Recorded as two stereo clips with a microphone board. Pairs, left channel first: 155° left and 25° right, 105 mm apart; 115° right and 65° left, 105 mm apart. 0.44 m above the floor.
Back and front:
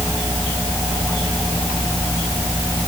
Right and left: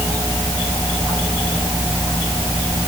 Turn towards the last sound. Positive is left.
No sound to turn to.